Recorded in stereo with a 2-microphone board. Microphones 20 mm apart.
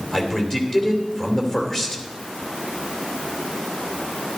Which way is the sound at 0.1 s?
20° left (ahead or behind).